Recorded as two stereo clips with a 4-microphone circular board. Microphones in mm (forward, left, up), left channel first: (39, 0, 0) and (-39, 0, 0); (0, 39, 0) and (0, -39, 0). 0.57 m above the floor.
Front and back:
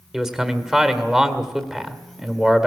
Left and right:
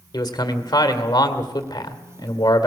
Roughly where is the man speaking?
Left.